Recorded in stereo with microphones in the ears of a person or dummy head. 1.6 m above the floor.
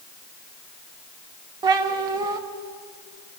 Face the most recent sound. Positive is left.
turn(degrees=-25)  # may be behind; listen again after turning